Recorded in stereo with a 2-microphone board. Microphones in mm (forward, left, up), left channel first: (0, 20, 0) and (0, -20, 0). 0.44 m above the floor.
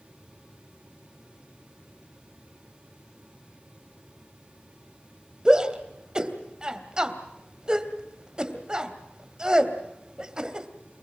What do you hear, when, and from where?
5.5 s a shout: 20° right (ahead or behind), 2.5 m